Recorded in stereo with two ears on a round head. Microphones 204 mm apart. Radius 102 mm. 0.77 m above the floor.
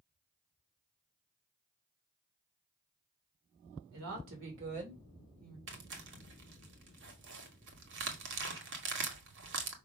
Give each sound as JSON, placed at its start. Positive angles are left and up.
{"t": 3.9, "sound": "a woman speaking", "side_deg": -70, "distance_m": 2.5}
{"t": 5.7, "sound": "tearing paper", "side_deg": -55, "distance_m": 1.7}